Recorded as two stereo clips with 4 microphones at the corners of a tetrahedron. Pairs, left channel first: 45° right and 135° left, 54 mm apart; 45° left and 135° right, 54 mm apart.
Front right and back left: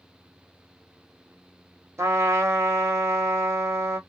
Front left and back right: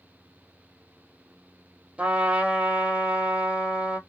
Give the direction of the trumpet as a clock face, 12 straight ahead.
7 o'clock.